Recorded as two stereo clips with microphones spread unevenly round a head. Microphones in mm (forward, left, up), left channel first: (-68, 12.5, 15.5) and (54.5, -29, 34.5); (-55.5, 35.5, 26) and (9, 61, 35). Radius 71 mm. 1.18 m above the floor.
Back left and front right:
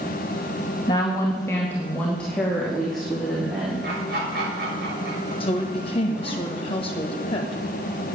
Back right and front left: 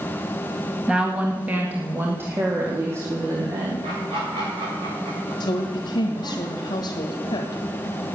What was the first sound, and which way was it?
A woman speaking, 100° left.